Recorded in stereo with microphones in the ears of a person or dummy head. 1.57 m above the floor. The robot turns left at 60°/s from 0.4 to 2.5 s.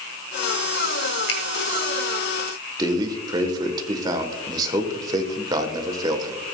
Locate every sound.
1.3 s a finger snap: 85° left, 1.9 m; by 1.4 s 90° left, 1.9 m
2.8 s a man speaking: 30° right (ahead or behind), 1.1 m